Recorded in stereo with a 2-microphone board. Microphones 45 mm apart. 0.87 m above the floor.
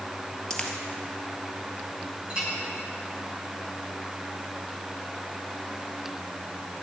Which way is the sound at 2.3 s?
25° right (ahead or behind).